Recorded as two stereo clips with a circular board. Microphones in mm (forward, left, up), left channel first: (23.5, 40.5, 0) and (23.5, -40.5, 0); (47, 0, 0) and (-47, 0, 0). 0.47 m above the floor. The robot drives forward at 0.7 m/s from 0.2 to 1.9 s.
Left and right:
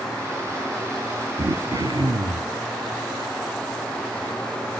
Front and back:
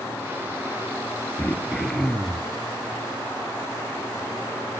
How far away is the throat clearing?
About 1.5 m.